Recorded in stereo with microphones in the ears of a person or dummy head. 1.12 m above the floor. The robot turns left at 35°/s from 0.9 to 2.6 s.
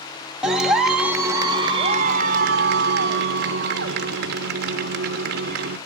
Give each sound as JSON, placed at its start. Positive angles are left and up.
{"t": 0.4, "sound": "a clap", "azimuth_deg": 0, "distance_m": 1.4}